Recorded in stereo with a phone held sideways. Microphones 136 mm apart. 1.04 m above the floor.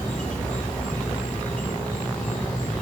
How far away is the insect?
About 5 m.